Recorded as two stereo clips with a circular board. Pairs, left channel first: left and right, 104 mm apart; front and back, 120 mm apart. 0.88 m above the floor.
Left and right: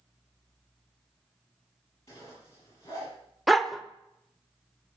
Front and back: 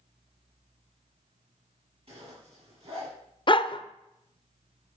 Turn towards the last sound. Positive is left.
turn(degrees=0)